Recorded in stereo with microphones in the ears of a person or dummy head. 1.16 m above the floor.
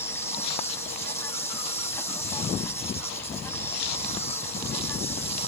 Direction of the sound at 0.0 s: 10° left (ahead or behind).